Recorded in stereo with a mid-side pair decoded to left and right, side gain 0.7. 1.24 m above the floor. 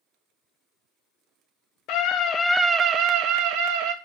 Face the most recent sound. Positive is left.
turn(degrees=-75)